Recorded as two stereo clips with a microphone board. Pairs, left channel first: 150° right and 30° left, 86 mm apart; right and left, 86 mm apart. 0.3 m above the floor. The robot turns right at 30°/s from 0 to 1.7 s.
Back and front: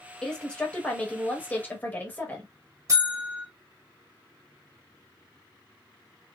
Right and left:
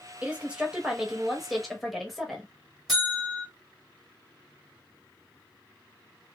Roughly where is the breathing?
I don't hear breathing.